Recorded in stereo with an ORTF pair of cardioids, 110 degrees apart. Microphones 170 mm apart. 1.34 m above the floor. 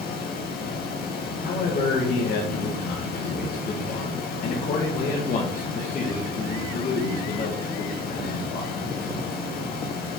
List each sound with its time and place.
0.0 s a fan: 65° left, 1.6 m
1.4 s a man speaking: 55° left, 1.8 m